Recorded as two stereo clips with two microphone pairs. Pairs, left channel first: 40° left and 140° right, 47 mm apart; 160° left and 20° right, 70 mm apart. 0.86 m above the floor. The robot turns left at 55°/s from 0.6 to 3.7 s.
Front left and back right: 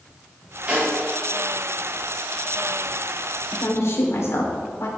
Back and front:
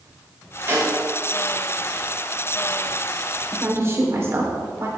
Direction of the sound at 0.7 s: 75° right.